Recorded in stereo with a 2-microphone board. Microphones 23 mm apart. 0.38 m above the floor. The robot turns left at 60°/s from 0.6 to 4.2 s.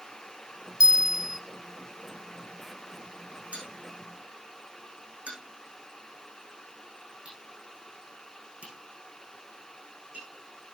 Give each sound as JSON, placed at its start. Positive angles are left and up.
{"t": 0.8, "sound": "a bell", "azimuth_deg": -130, "distance_m": 0.9}
{"t": 3.5, "sound": "a bell", "side_deg": -70, "distance_m": 7.5}